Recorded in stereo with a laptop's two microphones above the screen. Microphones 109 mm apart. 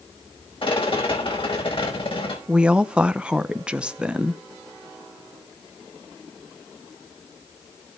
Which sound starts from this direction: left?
A rattle, at 0.6 s.